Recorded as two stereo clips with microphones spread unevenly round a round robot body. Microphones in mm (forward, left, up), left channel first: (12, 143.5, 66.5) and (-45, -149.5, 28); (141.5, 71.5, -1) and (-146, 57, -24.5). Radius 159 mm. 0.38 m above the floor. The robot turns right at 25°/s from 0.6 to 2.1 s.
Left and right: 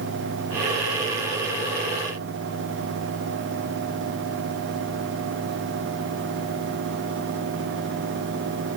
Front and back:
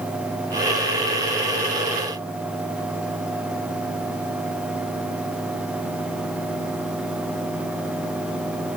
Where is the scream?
I don't hear a scream.